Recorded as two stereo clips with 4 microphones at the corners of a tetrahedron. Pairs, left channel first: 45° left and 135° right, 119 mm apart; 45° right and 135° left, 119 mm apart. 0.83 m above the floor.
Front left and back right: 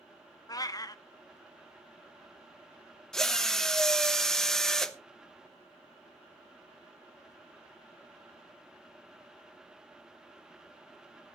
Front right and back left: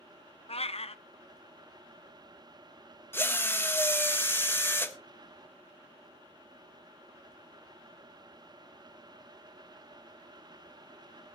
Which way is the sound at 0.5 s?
15° right.